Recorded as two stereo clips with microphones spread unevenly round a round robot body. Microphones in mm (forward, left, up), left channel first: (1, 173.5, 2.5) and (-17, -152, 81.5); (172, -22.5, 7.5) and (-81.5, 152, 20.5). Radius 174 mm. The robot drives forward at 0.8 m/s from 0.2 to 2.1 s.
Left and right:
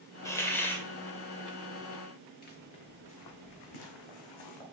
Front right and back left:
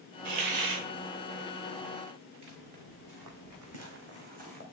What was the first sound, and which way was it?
A hiss, 155° left.